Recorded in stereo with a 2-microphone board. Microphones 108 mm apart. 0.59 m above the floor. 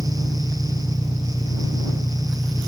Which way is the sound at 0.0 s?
5° left (ahead or behind).